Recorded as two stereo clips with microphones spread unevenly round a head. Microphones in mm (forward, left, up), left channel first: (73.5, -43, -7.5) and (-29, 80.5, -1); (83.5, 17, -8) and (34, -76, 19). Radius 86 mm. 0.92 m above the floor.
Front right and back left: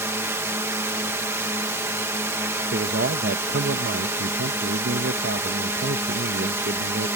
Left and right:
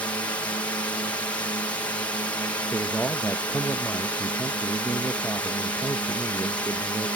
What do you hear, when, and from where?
0.0 s a drone: 70° left
2.7 s a man speaking: 135° left